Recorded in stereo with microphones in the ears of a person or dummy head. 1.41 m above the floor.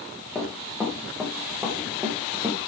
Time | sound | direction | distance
0.3 | running footsteps | centre (ahead or behind) | 7.5 m